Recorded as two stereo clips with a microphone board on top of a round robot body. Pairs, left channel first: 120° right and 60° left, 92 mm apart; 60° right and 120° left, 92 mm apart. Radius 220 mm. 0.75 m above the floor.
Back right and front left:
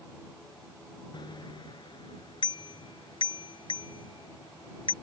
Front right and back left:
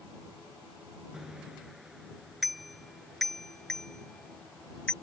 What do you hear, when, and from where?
1.1 s a bicycle bell: 155° right; by 4.9 s 140° right